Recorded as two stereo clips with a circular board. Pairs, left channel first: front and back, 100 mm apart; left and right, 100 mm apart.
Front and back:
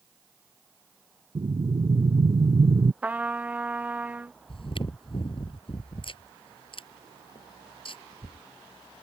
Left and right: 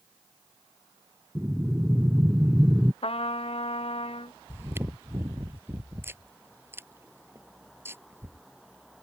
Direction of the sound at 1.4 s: 170° right.